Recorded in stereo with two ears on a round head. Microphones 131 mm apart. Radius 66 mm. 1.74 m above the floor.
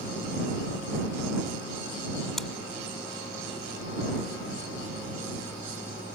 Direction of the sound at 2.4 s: Centre (ahead or behind).